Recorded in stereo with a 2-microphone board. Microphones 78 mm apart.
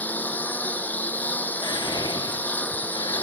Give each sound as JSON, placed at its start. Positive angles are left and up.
{"t": 0.0, "sound": "a lawn mower", "side_deg": 20}
{"t": 1.6, "sound": "whispering", "side_deg": 75}